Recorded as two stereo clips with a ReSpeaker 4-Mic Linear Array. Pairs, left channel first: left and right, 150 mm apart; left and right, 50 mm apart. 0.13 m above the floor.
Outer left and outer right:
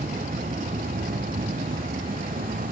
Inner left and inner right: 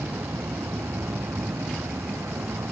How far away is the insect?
About 0.9 m.